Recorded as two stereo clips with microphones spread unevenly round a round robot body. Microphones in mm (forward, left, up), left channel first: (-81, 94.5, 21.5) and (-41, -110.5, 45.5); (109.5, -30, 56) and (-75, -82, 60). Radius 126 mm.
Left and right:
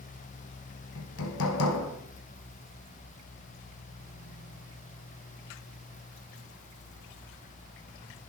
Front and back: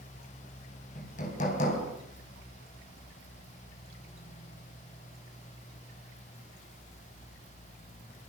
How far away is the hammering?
About 5 m.